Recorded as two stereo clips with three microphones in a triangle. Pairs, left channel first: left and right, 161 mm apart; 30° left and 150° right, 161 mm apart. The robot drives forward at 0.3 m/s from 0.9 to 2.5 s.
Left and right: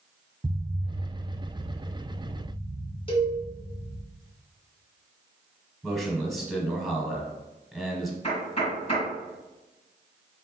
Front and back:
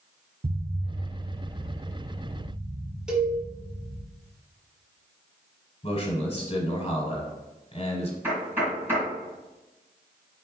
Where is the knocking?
135° left, 2 m.